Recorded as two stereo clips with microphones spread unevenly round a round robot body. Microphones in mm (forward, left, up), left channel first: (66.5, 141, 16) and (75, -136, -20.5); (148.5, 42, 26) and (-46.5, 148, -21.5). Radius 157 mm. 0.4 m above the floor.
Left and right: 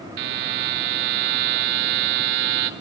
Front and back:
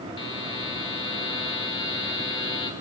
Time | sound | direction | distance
0.2 | a buzzer | 100° right | 0.9 m